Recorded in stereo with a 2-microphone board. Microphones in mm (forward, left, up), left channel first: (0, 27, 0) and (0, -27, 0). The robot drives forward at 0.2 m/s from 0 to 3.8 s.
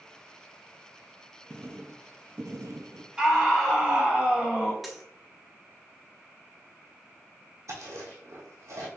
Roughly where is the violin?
No violin in this recording.